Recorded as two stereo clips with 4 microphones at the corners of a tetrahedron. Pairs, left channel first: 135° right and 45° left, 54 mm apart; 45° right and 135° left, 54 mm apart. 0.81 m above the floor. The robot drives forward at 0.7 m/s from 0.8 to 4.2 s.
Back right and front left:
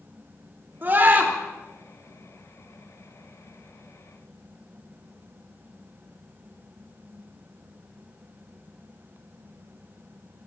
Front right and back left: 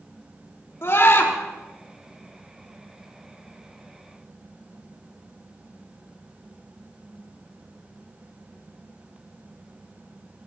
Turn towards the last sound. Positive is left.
turn(degrees=-20)